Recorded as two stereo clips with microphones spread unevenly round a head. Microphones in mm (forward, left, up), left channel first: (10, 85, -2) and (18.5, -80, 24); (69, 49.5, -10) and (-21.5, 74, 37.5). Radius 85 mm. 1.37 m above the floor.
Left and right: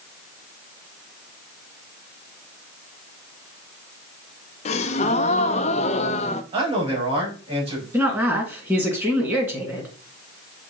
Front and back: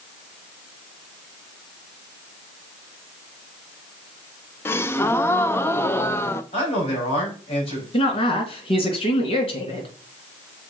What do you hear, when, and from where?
4.7 s a gasp: 80° left, 0.5 m
6.5 s a man speaking: 30° right, 5 m
7.9 s a woman speaking: 10° right, 2.5 m